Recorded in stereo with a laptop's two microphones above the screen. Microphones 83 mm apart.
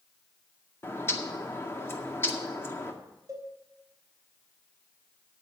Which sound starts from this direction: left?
A bird, at 0.8 s.